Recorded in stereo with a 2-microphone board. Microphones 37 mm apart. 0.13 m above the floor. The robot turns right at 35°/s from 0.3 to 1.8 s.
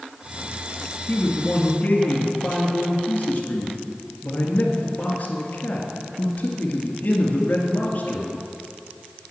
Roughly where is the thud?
I don't hear a thud.